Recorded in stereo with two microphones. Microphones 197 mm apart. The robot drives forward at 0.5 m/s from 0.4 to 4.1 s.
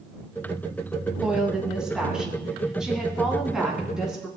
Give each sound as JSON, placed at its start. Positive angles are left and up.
{"t": 1.2, "sound": "a woman speaking", "side_deg": -5, "distance_m": 3.0}